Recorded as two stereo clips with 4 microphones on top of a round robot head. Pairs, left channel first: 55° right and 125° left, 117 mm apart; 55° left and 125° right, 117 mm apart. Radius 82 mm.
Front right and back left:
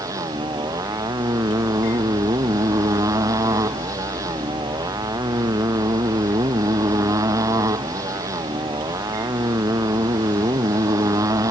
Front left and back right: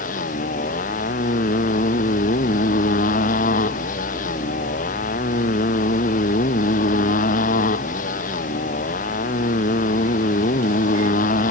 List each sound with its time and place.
0.0 s a motorcycle: 60° left